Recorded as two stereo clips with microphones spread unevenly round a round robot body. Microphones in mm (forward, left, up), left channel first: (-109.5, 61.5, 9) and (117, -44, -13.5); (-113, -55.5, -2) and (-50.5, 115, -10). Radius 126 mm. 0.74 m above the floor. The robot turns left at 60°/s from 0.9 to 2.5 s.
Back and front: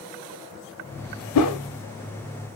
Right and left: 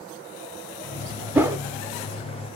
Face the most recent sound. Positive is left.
turn(degrees=85)